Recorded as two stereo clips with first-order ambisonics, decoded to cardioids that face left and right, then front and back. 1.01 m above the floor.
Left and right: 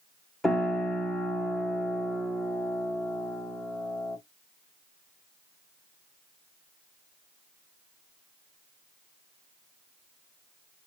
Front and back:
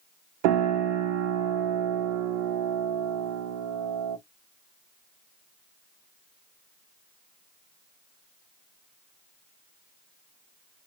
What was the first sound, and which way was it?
A piano, 175° left.